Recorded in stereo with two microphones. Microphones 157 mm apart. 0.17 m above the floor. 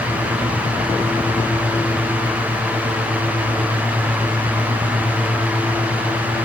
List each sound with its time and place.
Only background noise.